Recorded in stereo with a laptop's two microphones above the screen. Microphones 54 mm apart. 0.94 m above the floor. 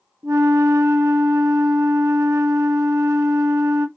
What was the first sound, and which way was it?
A flute, 65° right (ahead or behind).